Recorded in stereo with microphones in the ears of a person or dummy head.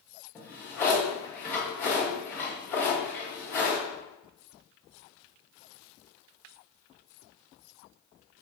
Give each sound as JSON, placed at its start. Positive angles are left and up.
{"t": 0.3, "sound": "a drawer", "side_deg": 10, "distance_m": 1.1}